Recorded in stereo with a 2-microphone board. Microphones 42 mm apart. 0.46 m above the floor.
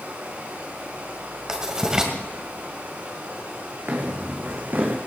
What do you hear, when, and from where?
0.0 s running water: 50° right (ahead or behind), 9.5 m
1.5 s writing: 15° right (ahead or behind), 2 m
3.9 s footsteps: 50° right (ahead or behind), 2.5 m; by 5.0 s 45° right (ahead or behind), 1.9 m